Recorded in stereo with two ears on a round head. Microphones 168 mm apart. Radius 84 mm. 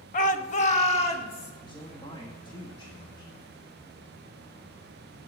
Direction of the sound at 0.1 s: 40° left (ahead or behind).